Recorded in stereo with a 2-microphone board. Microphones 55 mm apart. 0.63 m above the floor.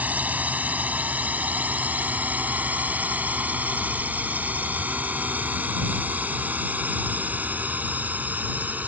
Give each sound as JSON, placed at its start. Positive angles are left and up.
{"t": 0.0, "sound": "a drone", "side_deg": -30}